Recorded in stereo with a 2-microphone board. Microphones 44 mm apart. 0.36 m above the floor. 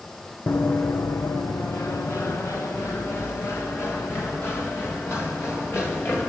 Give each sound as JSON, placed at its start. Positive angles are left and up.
{"t": 0.5, "sound": "running footsteps", "side_deg": 50, "distance_m": 1.5}